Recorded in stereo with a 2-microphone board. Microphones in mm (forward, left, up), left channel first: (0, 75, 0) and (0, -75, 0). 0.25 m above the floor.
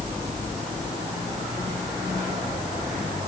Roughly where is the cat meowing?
No cat meowing in this recording.